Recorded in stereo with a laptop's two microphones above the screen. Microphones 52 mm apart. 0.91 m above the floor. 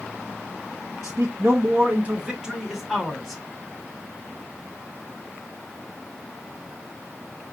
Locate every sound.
1.0 s a man speaking: 65° right (ahead or behind), 0.7 m; by 3.4 s centre (ahead or behind), 1.5 m